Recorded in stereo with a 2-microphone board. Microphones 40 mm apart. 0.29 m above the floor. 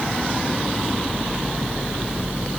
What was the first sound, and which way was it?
Only background noise.